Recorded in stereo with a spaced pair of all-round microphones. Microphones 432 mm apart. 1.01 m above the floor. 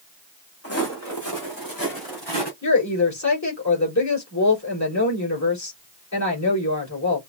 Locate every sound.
0.6 s footsteps: 30° left (ahead or behind), 3 m; by 2.5 s 60° left (ahead or behind), 3.5 m
2.6 s a woman speaking: 40° left (ahead or behind), 4.5 m